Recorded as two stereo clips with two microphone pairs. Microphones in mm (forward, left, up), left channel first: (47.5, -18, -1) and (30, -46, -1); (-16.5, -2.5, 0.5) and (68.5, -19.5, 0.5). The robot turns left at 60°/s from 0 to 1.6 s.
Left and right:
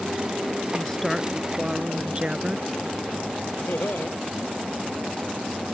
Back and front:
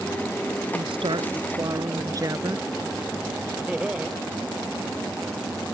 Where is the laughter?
65° left.